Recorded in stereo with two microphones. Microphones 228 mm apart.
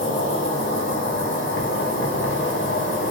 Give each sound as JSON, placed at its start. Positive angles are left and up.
{"t": 0.0, "sound": "an insect", "side_deg": 55, "distance_m": 0.8}